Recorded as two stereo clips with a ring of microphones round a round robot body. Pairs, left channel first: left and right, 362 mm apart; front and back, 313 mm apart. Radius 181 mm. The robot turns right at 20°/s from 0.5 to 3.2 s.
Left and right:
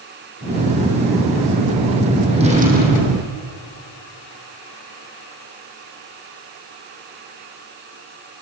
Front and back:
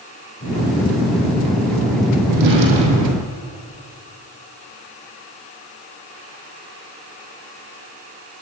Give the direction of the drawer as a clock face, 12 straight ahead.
6 o'clock.